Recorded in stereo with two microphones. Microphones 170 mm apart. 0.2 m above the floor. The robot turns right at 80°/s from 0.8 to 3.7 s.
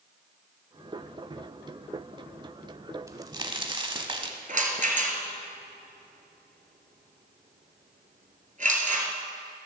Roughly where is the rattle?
Right.